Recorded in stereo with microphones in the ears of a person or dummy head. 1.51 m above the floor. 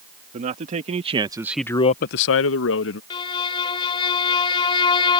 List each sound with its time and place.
0.3 s a man speaking: 40° right (ahead or behind); by 3.0 s 70° left (ahead or behind)
3.1 s a violin: 25° left (ahead or behind)